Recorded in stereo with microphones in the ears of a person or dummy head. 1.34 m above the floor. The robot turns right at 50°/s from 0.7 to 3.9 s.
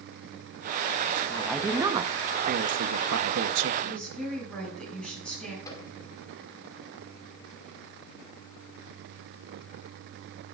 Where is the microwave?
25° left (ahead or behind), 2.5 m.